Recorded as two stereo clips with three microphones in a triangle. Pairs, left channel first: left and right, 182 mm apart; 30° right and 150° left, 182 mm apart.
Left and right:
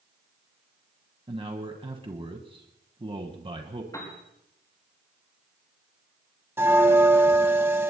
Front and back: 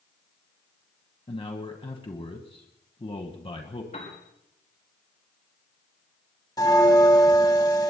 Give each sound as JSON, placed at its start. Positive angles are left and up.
{"t": 1.3, "sound": "a man speaking", "azimuth_deg": -60, "distance_m": 1.4}
{"t": 3.9, "sound": "a piano", "azimuth_deg": 20, "distance_m": 5.5}
{"t": 6.6, "sound": "a bell", "azimuth_deg": -40, "distance_m": 1.4}